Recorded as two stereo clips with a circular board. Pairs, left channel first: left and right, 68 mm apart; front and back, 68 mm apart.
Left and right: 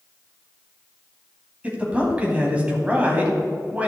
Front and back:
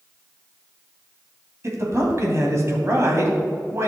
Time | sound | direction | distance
1.6 | a man speaking | 155° right | 2 m